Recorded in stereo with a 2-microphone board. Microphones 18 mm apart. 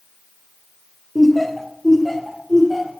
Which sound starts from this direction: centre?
Laughter, at 1.1 s.